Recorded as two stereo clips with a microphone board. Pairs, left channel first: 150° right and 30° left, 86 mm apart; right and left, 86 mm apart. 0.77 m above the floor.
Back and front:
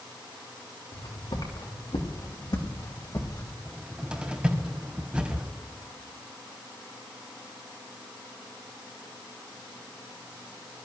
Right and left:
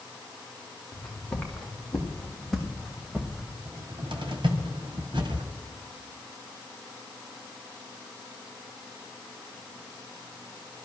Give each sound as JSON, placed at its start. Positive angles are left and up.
{"t": 0.9, "sound": "footsteps", "azimuth_deg": -170, "distance_m": 4.0}
{"t": 3.6, "sound": "a cupboard door", "azimuth_deg": 105, "distance_m": 1.9}